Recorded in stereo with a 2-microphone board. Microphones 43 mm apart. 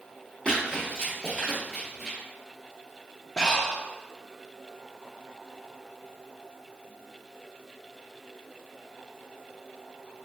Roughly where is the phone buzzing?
No phone buzzing in this recording.